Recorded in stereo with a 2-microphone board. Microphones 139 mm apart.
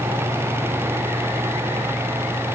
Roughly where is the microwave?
I don't hear a microwave.